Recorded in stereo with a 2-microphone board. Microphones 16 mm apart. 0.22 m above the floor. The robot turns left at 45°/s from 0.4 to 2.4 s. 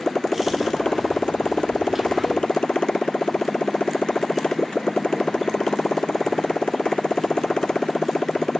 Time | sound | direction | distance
0.0 | a motorcycle | 150° left | ?